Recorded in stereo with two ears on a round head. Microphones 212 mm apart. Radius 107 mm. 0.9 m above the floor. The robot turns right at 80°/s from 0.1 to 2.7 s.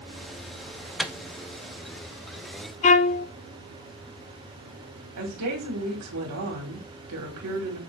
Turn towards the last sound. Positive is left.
turn(degrees=-75)  # may be behind; listen again after turning